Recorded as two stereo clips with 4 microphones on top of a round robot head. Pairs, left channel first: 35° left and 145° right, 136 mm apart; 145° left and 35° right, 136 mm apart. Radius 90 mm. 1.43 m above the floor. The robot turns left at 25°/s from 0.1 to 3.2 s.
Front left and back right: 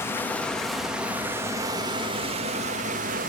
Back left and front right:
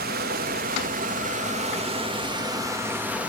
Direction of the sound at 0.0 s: 40° right.